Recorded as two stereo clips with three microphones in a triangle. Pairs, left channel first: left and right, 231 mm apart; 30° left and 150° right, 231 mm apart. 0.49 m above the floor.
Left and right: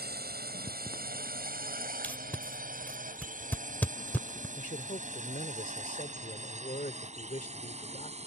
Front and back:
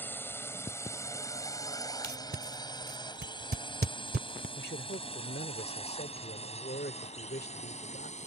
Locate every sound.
0.0 s a drone: 50° right; by 8.3 s 30° right
2.0 s tape being pulled: 170° left
4.6 s a man speaking: 50° left